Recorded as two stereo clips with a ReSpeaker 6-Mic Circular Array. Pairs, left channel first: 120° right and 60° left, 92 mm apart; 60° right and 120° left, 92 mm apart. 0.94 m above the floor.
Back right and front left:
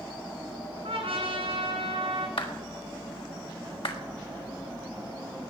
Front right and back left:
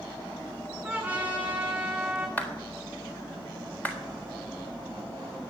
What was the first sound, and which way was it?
A trumpet, 40° left.